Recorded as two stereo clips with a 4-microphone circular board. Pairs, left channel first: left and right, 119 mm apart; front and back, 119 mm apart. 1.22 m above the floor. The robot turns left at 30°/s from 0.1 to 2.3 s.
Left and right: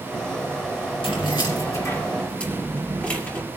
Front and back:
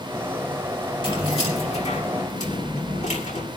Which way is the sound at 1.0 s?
50° left.